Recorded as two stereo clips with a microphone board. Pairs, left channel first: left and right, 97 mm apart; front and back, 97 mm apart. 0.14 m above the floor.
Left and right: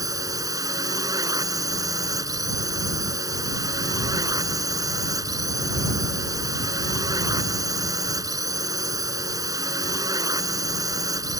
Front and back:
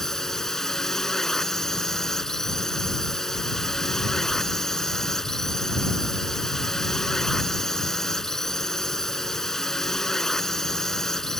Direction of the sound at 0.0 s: 85° right.